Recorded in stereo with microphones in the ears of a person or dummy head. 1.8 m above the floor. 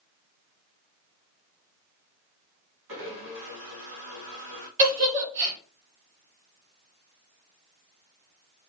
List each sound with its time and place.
2.9 s a blender: 65° right (ahead or behind), 2 m
4.8 s a giggle: 35° right (ahead or behind), 1.8 m